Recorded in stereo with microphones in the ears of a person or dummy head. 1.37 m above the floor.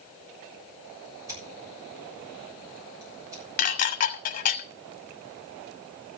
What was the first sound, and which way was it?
Scissors, 20° right (ahead or behind).